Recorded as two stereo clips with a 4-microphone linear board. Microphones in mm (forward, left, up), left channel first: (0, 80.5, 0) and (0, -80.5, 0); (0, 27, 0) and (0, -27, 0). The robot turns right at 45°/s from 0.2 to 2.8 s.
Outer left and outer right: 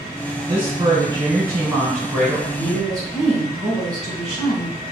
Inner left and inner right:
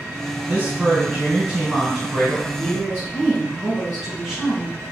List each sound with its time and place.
0.5 s a woman speaking: 95° right, 1.7 m; by 2.5 s 5° right, 1.7 m
2.6 s a woman speaking: centre (ahead or behind), 1.6 m